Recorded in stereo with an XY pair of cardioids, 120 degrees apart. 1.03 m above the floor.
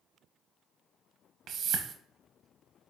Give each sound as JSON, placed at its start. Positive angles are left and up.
{"t": 1.5, "sound": "a whoosh", "azimuth_deg": -60, "distance_m": 0.8}